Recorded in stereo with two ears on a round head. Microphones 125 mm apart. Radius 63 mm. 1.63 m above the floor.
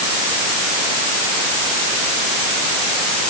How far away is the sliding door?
No sliding door in this recording.